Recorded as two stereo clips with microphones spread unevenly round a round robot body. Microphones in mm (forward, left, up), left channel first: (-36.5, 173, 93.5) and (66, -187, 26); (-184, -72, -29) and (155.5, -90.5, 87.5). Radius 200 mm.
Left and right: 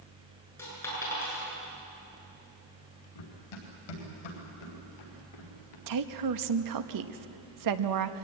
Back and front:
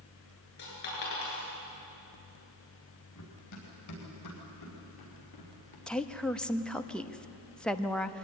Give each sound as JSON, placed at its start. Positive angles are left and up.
{"t": 0.6, "sound": "a dropped coin", "azimuth_deg": -170, "distance_m": 8.0}
{"t": 3.1, "sound": "running footsteps", "azimuth_deg": 125, "distance_m": 7.5}
{"t": 5.9, "sound": "a woman speaking", "azimuth_deg": -105, "distance_m": 1.2}